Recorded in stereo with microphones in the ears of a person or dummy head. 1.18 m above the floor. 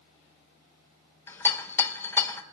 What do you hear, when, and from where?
1.3 s a rattle: 20° left (ahead or behind), 0.5 m